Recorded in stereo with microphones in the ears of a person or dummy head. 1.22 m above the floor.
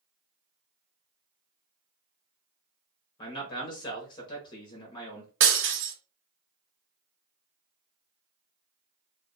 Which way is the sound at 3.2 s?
25° left (ahead or behind).